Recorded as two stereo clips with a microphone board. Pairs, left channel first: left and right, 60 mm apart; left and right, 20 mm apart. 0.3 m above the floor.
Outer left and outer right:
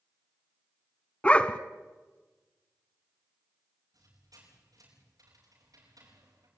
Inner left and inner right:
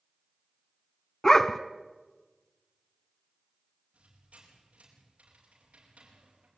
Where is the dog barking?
20° left (ahead or behind), 1.1 m.